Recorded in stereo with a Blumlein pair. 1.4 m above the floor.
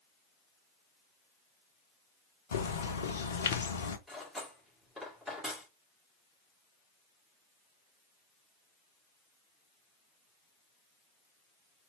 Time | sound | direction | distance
2.5 | a bird | 65° left | 0.7 m
4.1 | cutlery clinking | 5° left | 2.5 m